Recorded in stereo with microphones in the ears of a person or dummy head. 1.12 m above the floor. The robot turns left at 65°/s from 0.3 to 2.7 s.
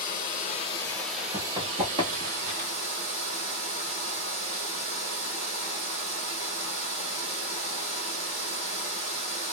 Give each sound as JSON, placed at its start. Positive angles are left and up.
{"t": 0.0, "sound": "running water", "azimuth_deg": 55, "distance_m": 1.4}
{"t": 1.3, "sound": "running footsteps", "side_deg": -20, "distance_m": 1.5}